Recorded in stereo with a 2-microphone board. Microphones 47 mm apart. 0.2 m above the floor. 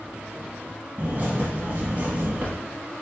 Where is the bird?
40° right (ahead or behind), 1.2 m.